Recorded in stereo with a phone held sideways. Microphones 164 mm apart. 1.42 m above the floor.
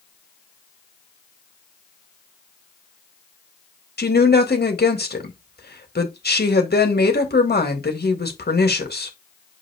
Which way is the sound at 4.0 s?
80° left.